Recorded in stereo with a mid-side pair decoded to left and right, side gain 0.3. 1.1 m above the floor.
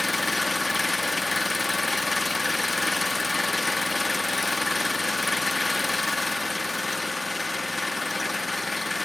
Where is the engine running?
25° left, 1.8 m.